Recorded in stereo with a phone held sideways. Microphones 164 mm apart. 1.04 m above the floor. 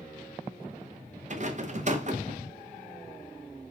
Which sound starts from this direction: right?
A rattle, at 1.3 s.